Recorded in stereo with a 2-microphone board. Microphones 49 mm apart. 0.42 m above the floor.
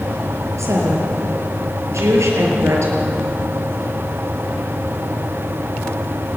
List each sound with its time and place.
0.6 s a woman speaking: 85° right, 6.5 m